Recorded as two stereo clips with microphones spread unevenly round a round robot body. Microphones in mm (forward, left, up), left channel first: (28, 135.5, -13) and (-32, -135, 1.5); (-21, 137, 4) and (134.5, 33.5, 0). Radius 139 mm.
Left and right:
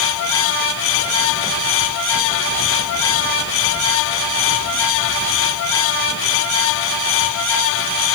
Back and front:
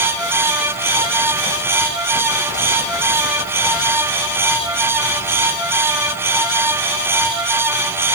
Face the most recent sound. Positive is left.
No sound to turn to.